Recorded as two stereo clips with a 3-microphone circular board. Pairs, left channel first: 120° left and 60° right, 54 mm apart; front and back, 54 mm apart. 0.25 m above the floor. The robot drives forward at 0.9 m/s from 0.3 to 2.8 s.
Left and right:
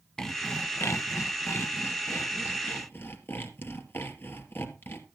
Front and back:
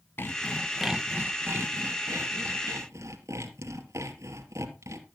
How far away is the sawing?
About 0.6 m.